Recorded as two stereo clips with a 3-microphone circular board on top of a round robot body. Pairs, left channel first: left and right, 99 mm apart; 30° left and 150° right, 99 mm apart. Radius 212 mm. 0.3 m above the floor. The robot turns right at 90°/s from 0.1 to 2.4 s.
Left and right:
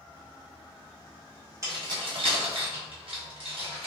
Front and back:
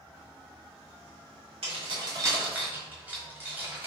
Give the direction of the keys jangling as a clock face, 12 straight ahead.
5 o'clock.